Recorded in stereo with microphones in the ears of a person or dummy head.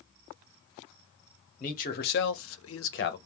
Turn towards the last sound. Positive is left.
turn(degrees=45)  # may be behind; listen again after turning